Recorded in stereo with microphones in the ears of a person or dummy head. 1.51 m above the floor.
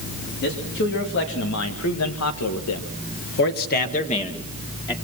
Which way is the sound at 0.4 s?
55° left (ahead or behind).